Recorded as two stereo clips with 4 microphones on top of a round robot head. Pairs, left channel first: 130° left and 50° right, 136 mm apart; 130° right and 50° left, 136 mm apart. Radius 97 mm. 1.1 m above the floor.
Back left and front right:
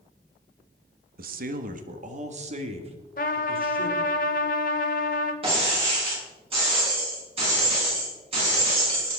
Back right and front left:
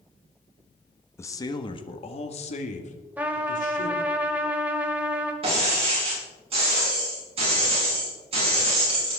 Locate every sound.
1.2 s a man speaking: 60° right, 1.3 m; by 4.2 s 105° right, 3.5 m
3.2 s a trumpet: 125° left, 1.0 m
5.4 s breaking glass: straight ahead, 7.5 m